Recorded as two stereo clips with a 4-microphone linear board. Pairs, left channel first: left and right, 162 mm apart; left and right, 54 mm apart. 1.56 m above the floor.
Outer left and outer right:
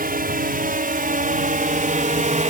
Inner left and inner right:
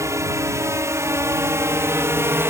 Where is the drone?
65° right (ahead or behind); by 2.5 s 50° right (ahead or behind).